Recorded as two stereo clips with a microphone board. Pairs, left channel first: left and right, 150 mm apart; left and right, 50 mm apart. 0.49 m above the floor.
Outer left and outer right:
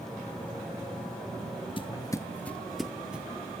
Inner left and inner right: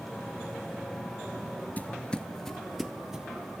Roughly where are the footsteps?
Left.